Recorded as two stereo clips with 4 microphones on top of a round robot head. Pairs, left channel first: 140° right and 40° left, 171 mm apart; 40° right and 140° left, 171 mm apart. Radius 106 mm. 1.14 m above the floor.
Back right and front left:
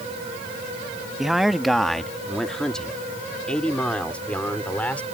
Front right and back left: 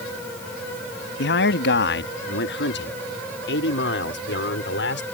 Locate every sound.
1.2 s a man speaking: 50° right; by 5.0 s 60° right